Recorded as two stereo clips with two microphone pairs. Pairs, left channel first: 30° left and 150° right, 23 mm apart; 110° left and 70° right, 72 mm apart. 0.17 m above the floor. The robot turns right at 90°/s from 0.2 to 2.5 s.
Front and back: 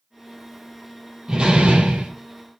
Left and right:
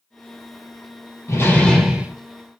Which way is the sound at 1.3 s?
150° left.